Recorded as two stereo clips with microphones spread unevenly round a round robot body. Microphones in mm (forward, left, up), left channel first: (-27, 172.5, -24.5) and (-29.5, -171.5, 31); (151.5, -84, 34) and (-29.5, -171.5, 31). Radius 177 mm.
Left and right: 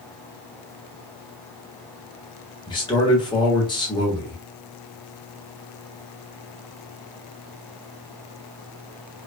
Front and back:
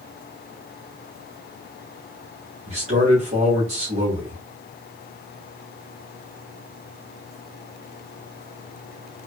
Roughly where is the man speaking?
Behind left.